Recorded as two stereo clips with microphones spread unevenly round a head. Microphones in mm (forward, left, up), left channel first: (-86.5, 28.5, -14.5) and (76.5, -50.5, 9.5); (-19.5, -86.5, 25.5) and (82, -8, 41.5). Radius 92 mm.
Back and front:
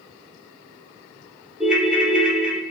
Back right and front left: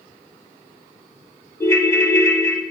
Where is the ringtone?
85° right, 0.6 m.